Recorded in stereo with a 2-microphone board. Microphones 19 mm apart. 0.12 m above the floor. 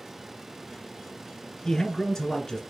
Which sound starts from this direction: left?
A man speaking, at 1.6 s.